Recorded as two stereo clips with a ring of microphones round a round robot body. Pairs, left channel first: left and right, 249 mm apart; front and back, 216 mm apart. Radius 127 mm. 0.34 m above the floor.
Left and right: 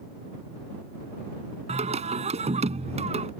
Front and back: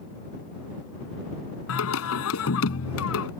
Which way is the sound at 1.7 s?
25° right.